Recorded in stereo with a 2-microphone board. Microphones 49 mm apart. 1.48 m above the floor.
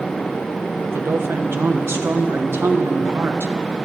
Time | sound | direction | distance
0.8 | a woman speaking | 55° right (ahead or behind) | 1.3 m